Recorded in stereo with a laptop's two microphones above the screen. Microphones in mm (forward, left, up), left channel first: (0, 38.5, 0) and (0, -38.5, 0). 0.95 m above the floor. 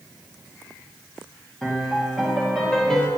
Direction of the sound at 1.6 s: 5° left (ahead or behind).